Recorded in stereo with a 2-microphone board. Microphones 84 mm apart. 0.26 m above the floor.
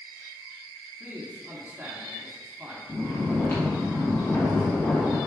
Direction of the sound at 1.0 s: 20° right (ahead or behind).